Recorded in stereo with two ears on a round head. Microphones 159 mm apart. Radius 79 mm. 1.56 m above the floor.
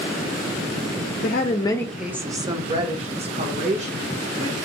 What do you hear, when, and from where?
1.2 s a woman speaking: 55° left (ahead or behind), 0.6 m; by 4.5 s 45° right (ahead or behind), 2.5 m